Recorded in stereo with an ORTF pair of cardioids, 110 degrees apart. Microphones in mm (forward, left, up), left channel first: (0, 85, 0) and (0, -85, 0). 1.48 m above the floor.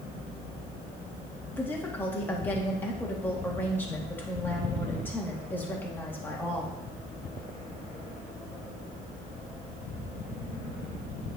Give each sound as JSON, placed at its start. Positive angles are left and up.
{"t": 1.5, "sound": "a woman speaking", "azimuth_deg": 10, "distance_m": 1.7}